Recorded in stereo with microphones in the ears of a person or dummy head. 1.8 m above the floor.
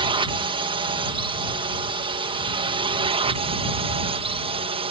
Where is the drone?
25° right (ahead or behind); by 4.9 s 30° right (ahead or behind).